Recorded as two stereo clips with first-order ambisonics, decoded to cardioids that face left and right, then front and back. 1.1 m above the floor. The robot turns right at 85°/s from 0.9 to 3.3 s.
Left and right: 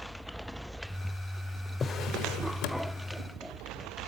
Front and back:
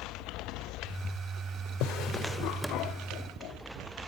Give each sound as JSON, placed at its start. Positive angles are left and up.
{"t": 1.8, "sound": "a drawer", "azimuth_deg": 20, "distance_m": 1.6}